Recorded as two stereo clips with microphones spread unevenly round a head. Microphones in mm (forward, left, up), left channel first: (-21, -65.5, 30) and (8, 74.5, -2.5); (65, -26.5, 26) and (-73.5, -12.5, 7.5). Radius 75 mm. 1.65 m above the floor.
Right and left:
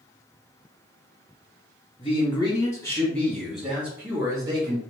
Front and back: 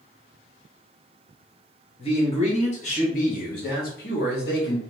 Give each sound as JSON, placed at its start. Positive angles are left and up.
{"t": 2.0, "sound": "a man speaking", "azimuth_deg": -50, "distance_m": 1.7}